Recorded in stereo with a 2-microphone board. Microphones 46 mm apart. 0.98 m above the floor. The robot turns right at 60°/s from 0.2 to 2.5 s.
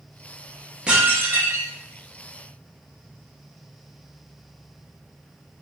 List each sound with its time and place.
0.9 s dishes clattering: 160° right, 0.9 m; by 1.7 s 110° right, 0.9 m